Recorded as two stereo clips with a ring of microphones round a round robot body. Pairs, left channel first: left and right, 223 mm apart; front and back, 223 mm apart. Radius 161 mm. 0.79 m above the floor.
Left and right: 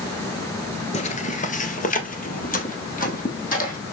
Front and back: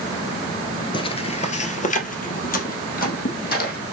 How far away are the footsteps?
About 0.9 m.